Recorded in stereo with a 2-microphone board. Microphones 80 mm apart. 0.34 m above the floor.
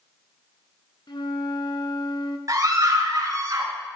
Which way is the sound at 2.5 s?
50° right (ahead or behind).